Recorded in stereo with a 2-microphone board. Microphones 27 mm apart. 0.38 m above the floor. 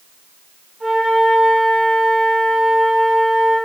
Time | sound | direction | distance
0.8 | a flute | 15° right (ahead or behind) | 1.1 m